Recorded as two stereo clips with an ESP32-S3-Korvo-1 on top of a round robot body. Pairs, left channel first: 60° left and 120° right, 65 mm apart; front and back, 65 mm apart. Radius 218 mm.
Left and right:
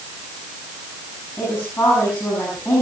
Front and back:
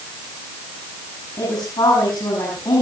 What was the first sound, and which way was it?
A woman speaking, 5° left.